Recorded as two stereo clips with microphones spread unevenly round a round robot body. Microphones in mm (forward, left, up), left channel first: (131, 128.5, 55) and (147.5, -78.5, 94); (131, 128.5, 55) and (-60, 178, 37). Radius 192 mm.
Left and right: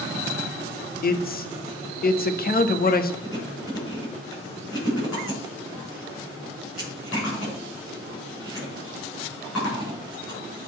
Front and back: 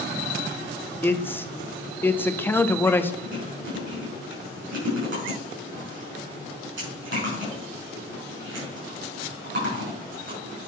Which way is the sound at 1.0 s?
65° left.